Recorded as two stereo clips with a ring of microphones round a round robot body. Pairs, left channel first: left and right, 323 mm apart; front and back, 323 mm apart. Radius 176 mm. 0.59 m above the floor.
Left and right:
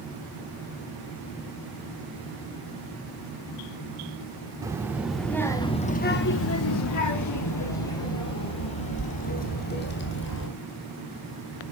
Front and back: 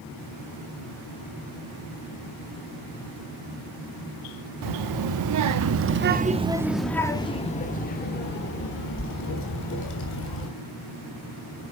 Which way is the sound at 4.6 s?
170° right.